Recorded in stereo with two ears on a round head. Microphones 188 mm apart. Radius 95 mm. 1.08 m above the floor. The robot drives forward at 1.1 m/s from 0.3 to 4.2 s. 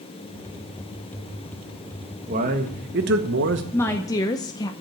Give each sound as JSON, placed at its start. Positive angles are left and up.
{"t": 2.3, "sound": "a man speaking", "side_deg": -35, "distance_m": 1.7}
{"t": 3.7, "sound": "a woman speaking", "side_deg": 10, "distance_m": 1.1}